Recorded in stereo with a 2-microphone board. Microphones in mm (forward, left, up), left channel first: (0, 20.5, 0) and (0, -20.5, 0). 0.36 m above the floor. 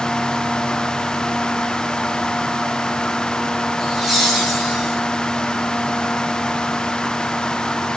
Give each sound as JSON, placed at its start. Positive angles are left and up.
{"t": 3.8, "sound": "laughter", "side_deg": 0, "distance_m": 6.5}